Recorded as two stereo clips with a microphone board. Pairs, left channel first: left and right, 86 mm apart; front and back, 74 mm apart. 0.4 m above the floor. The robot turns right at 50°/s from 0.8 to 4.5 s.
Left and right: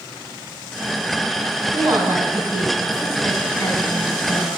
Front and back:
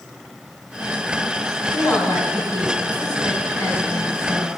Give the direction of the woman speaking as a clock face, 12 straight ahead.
2 o'clock.